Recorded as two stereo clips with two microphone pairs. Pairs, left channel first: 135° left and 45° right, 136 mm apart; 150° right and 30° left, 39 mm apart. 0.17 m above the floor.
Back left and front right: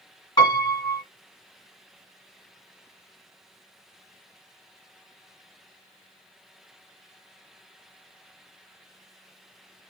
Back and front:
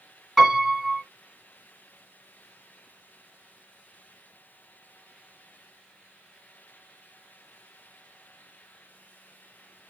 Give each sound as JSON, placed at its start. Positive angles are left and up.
{"t": 0.4, "sound": "a piano", "azimuth_deg": 135, "distance_m": 1.9}